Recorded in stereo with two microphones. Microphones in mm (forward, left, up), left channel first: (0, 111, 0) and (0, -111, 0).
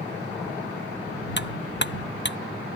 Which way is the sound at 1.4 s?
50° left (ahead or behind).